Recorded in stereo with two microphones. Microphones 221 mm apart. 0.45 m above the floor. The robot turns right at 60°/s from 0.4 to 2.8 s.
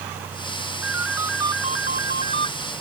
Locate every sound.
0.8 s a ringtone: 60° left; by 2.5 s 160° left